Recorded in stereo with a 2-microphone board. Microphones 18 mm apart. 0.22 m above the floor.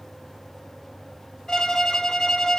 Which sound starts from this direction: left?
A violin, at 1.5 s.